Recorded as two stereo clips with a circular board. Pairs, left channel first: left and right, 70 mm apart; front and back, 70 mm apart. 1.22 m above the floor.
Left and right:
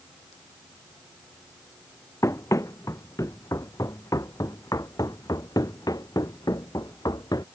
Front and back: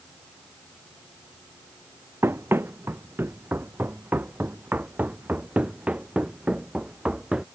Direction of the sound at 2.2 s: 130° left.